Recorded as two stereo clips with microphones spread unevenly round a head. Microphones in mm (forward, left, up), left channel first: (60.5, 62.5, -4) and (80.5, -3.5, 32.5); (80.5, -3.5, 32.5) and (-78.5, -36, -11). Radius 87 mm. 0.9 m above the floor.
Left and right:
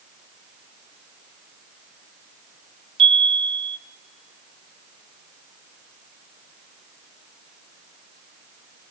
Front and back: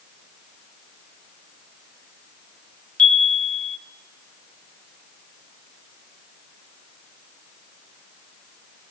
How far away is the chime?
About 0.7 m.